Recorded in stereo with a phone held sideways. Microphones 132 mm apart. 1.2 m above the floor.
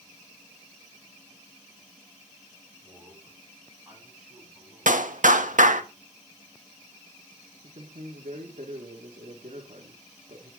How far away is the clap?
About 1.5 m.